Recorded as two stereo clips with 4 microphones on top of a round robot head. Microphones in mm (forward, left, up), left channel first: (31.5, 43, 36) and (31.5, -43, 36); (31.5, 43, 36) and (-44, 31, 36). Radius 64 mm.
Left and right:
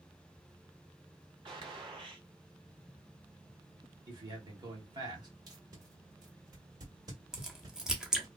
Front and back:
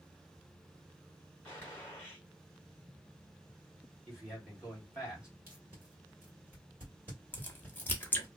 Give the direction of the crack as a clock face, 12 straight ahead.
1 o'clock.